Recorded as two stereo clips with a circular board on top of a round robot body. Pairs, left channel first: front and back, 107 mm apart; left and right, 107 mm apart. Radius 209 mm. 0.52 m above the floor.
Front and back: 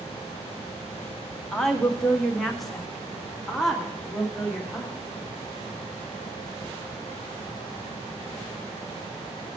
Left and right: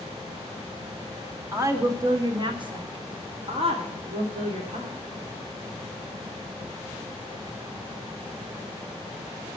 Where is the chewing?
No chewing in this recording.